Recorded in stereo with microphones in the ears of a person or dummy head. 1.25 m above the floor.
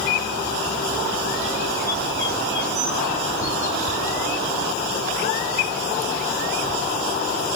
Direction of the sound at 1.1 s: 20° left (ahead or behind).